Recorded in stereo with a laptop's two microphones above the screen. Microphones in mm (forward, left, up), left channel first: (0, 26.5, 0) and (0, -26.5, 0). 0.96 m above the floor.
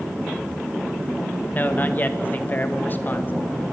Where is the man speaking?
35° left (ahead or behind), 1.2 m.